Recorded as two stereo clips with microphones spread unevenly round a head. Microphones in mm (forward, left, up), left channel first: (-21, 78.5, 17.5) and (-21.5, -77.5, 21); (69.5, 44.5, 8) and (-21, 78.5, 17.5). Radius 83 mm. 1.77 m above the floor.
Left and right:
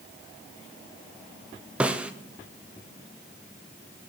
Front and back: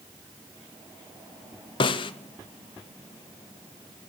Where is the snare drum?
10° right, 0.5 m.